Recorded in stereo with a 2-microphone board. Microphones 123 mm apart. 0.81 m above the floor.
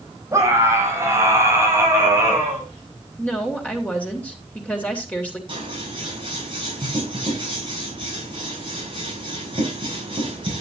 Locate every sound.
0.3 s a scream: 25° right (ahead or behind), 5.5 m; by 2.7 s 20° right (ahead or behind), 7.5 m
3.2 s a woman speaking: 10° left (ahead or behind), 3 m
5.5 s scissors: 45° right (ahead or behind), 7 m